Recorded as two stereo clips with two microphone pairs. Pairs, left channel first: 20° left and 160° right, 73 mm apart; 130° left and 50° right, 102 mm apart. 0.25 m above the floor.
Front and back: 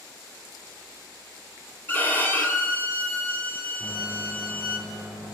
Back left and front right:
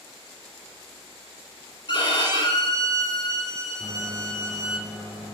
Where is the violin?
85° left, 1.0 m.